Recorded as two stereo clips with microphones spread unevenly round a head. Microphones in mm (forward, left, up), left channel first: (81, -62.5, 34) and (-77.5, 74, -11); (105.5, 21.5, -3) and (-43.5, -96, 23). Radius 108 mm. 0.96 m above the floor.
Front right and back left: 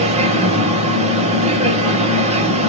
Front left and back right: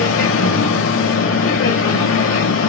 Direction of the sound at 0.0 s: 75° left.